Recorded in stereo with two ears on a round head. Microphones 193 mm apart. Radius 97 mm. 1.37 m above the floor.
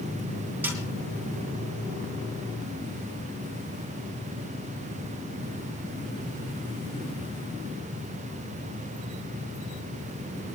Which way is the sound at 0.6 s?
10° right (ahead or behind).